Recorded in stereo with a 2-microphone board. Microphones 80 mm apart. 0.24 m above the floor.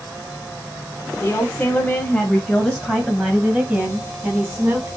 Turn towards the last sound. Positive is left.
turn(degrees=-25)  # may be behind; listen again after turning